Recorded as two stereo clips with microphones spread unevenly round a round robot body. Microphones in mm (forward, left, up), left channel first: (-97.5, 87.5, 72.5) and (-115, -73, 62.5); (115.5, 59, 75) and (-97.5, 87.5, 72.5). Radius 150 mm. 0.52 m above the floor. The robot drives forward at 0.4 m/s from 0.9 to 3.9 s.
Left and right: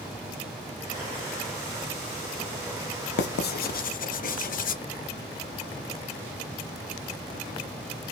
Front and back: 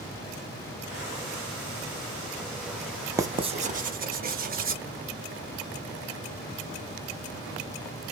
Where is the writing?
95° left, 0.6 m; by 4.8 s 120° left, 0.7 m.